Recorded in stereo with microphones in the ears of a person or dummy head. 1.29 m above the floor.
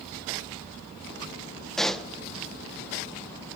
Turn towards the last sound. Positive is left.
turn(degrees=5)  # may be behind; listen again after turning